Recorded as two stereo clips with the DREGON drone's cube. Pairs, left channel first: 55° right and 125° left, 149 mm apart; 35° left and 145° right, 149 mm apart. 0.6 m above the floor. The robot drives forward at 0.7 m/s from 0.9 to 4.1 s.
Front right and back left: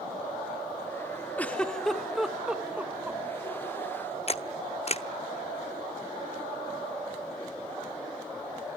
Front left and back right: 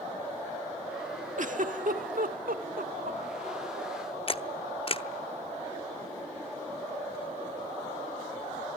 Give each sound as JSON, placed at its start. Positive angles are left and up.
{"t": 1.4, "sound": "a giggle", "azimuth_deg": -135, "distance_m": 1.4}
{"t": 4.3, "sound": "a camera shutter", "azimuth_deg": -15, "distance_m": 0.7}